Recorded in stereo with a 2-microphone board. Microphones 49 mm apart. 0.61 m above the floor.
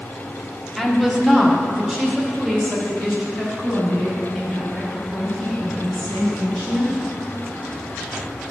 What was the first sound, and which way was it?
A woman speaking, 5° right (ahead or behind).